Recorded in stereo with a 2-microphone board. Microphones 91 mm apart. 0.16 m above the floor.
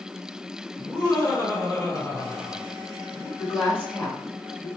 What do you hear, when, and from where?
0.8 s laughter: 15° left (ahead or behind), 1.9 m
3.4 s a woman speaking: 20° left (ahead or behind), 1.5 m